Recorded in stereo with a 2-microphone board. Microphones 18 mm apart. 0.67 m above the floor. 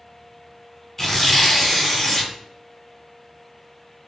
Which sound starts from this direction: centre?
Tearing paper, at 1.0 s.